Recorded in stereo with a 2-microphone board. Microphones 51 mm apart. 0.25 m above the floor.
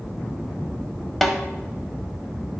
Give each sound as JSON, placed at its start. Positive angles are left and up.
{"t": 1.2, "sound": "a snare drum", "side_deg": 0, "distance_m": 0.8}